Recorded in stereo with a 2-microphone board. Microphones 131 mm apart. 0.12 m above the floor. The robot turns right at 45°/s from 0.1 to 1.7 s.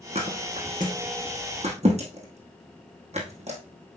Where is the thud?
50° right (ahead or behind), 2.5 m; by 3.6 s 55° right (ahead or behind), 2.5 m.